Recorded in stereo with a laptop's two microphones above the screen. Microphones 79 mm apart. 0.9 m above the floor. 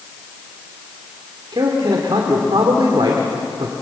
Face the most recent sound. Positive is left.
turn(degrees=-80)